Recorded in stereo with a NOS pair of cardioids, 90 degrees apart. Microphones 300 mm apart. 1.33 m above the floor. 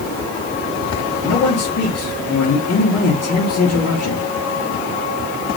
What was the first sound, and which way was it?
A man speaking, 55° left.